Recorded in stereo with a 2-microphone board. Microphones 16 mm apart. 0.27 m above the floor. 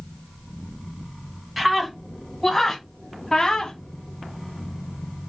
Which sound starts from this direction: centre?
A scream, at 1.6 s.